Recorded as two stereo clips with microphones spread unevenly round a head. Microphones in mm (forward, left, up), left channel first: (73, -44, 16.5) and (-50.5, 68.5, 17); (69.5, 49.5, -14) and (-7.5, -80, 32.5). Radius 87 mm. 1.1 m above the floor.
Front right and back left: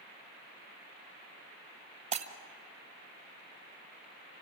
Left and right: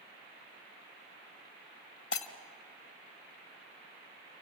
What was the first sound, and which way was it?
Breaking glass, 95° left.